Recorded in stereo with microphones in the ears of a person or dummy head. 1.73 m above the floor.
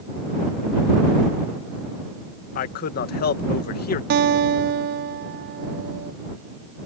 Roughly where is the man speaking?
Left.